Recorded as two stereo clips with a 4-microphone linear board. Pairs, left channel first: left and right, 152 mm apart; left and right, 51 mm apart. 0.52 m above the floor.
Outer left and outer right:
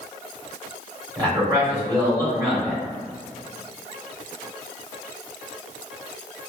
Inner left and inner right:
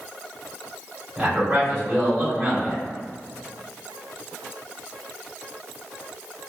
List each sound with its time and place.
1.2 s a man speaking: 25° right (ahead or behind), 1.9 m